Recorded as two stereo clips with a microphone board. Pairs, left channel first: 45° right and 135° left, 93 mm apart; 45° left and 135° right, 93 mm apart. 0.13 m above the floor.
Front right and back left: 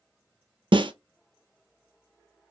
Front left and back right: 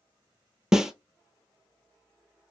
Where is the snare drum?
140° left, 0.5 m.